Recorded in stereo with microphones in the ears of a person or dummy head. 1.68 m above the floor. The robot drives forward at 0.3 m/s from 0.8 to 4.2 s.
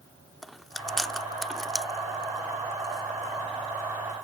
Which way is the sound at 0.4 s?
Centre (ahead or behind).